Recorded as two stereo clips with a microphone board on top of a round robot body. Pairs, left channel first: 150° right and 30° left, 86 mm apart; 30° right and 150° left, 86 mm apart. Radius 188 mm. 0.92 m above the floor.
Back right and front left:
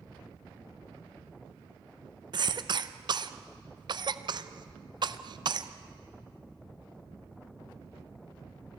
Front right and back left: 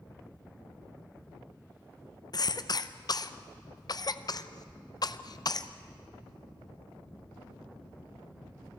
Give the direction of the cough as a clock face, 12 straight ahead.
12 o'clock.